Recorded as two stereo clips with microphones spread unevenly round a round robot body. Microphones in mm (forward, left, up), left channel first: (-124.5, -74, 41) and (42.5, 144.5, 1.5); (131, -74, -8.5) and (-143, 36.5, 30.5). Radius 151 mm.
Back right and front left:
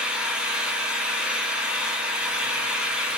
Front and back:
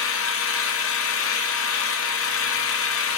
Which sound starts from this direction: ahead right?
An engine running, at 0.0 s.